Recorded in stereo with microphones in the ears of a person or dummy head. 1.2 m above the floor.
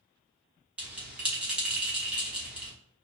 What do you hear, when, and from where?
0.8 s a bell: 5° right (ahead or behind), 1.1 m